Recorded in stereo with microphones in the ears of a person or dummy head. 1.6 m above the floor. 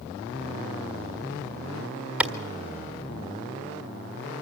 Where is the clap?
5° right (ahead or behind), 1.6 m.